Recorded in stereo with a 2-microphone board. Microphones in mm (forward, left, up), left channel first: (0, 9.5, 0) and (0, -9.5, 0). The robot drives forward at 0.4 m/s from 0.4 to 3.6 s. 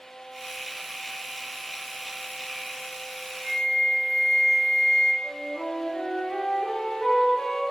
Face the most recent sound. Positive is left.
turn(degrees=25)  # may be behind; listen again after turning